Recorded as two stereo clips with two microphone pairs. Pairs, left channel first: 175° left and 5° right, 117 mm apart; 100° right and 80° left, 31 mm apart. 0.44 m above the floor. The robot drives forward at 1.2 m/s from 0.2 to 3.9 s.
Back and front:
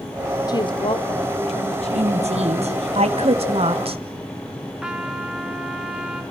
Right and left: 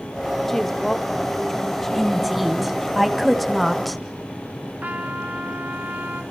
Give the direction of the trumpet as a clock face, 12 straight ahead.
9 o'clock.